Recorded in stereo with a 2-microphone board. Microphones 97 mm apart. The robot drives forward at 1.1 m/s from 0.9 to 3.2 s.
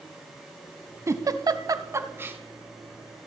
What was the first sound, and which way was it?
A giggle, 30° right (ahead or behind).